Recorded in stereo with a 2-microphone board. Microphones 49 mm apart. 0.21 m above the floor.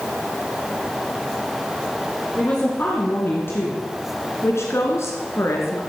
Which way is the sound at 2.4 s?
35° left (ahead or behind).